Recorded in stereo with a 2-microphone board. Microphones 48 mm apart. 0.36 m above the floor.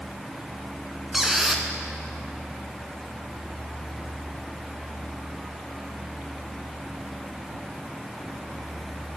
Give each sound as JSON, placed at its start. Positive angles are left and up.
{"t": 1.1, "sound": "a squeak", "side_deg": -5, "distance_m": 0.8}